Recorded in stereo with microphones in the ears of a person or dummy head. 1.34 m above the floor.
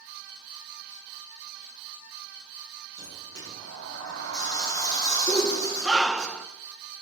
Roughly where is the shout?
Centre.